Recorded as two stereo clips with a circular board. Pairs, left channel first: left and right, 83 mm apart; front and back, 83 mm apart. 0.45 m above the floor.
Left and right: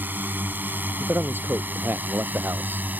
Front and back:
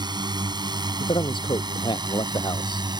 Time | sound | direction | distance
0.0 | a drone | 155° right | ?
1.0 | a man speaking | 25° right | ?